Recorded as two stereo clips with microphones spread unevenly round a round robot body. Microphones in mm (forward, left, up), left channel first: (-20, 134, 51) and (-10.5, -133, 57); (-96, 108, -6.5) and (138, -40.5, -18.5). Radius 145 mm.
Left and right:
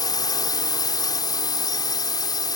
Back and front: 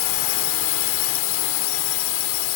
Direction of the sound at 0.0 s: 165° left.